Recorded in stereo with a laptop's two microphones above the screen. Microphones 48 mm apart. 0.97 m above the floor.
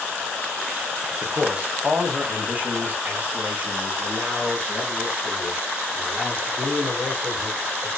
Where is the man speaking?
20° right (ahead or behind), 0.9 m; by 7.9 s 45° right (ahead or behind), 4.5 m.